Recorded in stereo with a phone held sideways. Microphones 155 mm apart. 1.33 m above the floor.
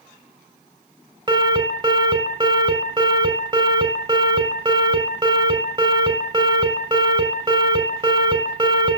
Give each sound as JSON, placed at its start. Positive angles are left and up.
{"t": 1.3, "sound": "an alarm", "side_deg": -25, "distance_m": 4.5}